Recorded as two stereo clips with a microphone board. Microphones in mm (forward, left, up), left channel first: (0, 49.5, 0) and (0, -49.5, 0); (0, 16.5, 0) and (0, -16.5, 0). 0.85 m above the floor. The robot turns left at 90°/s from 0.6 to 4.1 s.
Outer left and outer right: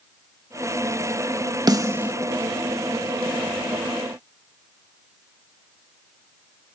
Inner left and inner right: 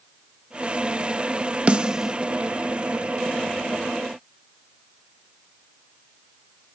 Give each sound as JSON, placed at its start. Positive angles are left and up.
{"t": 1.7, "sound": "a snare drum", "side_deg": -40}